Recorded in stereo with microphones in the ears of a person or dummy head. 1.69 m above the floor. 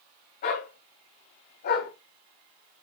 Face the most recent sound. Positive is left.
turn(degrees=55)  # may be behind; listen again after turning